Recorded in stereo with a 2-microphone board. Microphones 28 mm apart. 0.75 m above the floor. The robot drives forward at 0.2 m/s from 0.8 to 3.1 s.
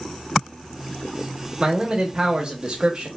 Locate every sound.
1.6 s a man speaking: 25° right (ahead or behind), 0.7 m; by 3.1 s 35° right (ahead or behind), 0.5 m